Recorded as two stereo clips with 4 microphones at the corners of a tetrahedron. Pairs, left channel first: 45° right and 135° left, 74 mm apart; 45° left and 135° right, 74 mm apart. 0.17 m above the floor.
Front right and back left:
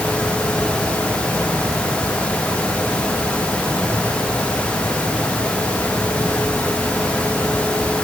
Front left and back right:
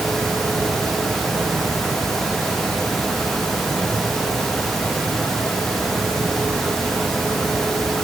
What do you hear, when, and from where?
Only background noise.